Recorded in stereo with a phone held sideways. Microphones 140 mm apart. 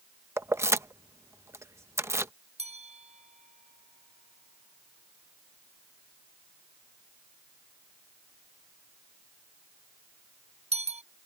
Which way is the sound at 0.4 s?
20° right (ahead or behind).